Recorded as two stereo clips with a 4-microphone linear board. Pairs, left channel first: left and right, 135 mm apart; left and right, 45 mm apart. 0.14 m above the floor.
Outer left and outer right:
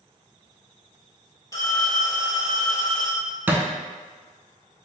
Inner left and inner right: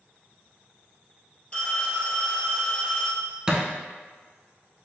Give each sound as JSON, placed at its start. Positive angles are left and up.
{"t": 1.5, "sound": "a phone ringing", "side_deg": 25, "distance_m": 1.8}
{"t": 3.5, "sound": "a thud", "side_deg": -15, "distance_m": 0.6}